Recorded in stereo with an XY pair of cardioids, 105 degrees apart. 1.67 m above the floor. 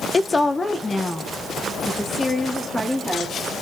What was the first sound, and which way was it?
A woman speaking, 25° left.